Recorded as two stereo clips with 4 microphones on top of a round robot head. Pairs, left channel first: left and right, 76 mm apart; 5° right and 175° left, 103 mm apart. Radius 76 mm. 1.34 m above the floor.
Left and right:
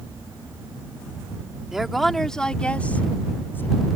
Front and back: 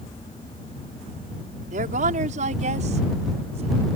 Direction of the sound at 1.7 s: 175° right.